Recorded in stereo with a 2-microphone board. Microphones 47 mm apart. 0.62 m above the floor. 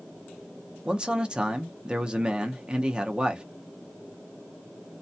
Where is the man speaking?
20° right (ahead or behind), 0.6 m.